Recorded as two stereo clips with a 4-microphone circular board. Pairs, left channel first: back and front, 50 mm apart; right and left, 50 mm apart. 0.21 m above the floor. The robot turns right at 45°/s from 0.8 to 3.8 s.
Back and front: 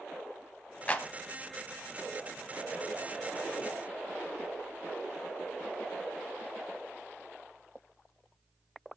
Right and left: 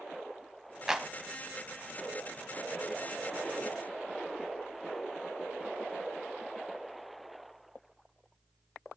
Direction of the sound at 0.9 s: 155° left.